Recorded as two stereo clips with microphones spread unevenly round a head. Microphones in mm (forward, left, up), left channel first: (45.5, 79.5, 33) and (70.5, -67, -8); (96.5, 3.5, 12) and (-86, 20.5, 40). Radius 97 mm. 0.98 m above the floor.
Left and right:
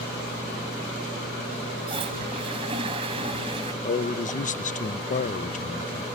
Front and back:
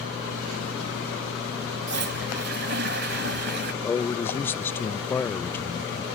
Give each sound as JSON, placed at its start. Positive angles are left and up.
{"t": 1.9, "sound": "a toilet flushing", "azimuth_deg": -150}
{"t": 3.8, "sound": "a man speaking", "azimuth_deg": 65}